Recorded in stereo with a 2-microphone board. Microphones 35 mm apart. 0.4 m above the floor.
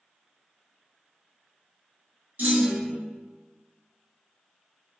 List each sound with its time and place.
2.4 s a clunk: 55° right (ahead or behind), 0.9 m